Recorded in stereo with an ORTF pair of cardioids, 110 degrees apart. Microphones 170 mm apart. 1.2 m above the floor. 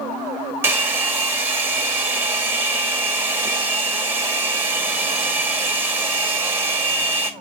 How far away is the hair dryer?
About 1.9 m.